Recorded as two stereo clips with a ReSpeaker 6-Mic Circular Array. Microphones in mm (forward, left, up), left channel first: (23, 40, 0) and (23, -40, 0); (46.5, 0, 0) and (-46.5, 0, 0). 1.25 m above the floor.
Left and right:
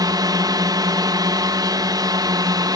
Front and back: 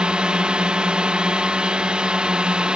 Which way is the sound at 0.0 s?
100° right.